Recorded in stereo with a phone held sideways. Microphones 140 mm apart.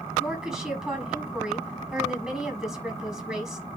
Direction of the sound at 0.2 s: 5° right (ahead or behind).